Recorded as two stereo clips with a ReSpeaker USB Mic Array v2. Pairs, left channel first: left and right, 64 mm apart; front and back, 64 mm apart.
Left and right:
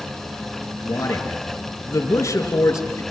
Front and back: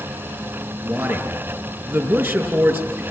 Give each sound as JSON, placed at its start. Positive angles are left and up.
{"t": 0.8, "sound": "a man speaking", "azimuth_deg": 130, "distance_m": 5.5}